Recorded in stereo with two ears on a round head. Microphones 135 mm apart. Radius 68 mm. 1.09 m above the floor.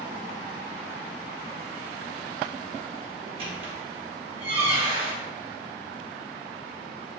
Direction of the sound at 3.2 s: 35° right (ahead or behind).